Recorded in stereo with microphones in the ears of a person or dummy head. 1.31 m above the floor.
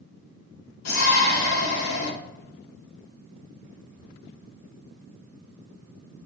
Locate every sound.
0.8 s a shout: 85° left, 3.5 m